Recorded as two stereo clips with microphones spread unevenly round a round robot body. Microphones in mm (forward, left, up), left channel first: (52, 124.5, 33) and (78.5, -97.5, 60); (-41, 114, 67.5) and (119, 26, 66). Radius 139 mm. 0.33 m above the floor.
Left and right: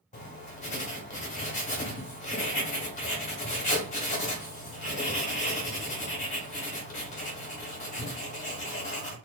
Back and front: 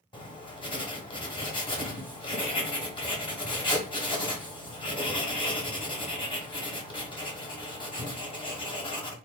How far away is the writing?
About 1.0 m.